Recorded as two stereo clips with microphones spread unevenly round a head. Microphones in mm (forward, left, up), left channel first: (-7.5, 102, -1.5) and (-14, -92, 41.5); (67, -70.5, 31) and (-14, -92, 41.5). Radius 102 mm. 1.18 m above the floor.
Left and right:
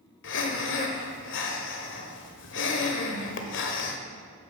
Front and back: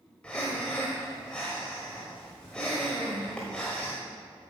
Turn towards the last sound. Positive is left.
turn(degrees=105)